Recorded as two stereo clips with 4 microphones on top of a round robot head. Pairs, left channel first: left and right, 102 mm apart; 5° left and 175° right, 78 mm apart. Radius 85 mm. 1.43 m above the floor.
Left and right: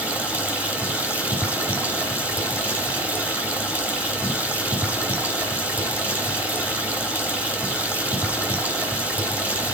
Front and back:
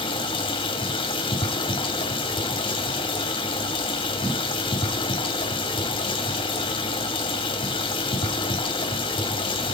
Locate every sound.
0.0 s running water: 15° right, 2 m